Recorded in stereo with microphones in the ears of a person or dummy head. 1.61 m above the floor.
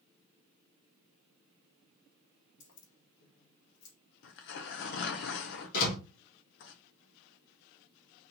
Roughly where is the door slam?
Left.